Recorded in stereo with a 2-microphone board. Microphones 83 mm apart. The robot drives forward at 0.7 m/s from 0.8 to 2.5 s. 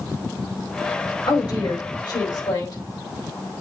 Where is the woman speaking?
65° left (ahead or behind), 4.5 m; by 2.8 s 55° left (ahead or behind), 5 m.